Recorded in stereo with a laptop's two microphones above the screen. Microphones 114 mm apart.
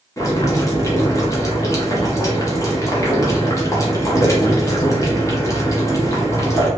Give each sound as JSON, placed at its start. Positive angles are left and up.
{"t": 0.2, "sound": "boiling", "side_deg": 25, "distance_m": 0.8}